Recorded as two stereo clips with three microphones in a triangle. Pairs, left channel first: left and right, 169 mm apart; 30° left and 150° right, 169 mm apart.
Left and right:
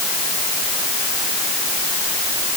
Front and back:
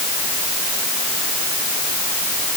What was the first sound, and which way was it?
Only background noise.